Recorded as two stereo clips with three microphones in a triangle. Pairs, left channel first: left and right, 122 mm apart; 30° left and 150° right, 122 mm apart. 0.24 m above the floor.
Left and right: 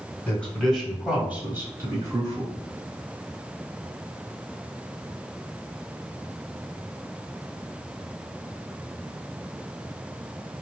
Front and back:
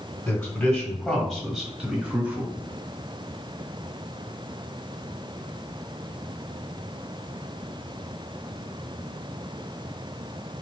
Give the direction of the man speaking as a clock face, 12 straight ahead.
11 o'clock.